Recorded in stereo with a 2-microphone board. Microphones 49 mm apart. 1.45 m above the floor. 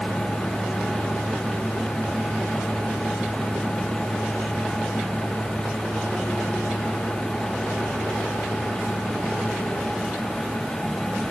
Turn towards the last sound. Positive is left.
No sound to turn to.